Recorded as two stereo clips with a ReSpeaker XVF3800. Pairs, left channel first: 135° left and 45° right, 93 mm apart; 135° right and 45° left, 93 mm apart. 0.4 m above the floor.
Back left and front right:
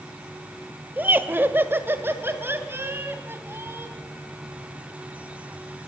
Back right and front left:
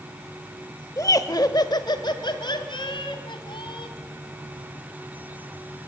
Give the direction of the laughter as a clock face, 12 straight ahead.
3 o'clock.